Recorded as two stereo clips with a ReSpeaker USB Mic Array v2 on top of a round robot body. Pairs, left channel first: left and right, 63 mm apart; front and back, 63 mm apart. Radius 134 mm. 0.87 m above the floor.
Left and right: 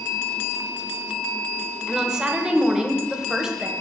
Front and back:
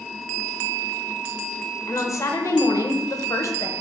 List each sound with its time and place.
1.9 s a woman speaking: 15° right, 1.0 m